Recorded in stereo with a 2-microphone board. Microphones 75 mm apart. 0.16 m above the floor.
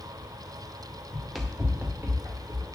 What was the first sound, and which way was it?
Running footsteps, 15° left (ahead or behind).